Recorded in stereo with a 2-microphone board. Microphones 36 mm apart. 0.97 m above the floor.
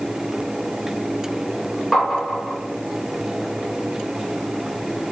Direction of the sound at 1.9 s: Centre (ahead or behind).